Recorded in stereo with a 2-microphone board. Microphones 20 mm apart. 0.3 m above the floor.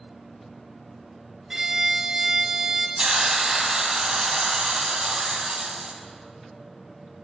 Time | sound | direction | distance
1.5 | a violin | 25° right (ahead or behind) | 0.7 m
3.0 | a hiss | 45° right (ahead or behind) | 0.8 m